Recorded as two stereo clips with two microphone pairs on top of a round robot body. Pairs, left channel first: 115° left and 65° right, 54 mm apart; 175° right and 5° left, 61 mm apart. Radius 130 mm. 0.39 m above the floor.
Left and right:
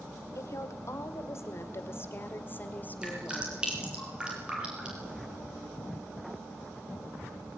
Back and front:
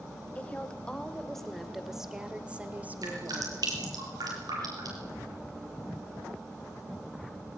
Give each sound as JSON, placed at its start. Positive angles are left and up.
{"t": 0.3, "sound": "a woman speaking", "azimuth_deg": 115, "distance_m": 2.5}
{"t": 3.0, "sound": "dripping", "azimuth_deg": 5, "distance_m": 6.5}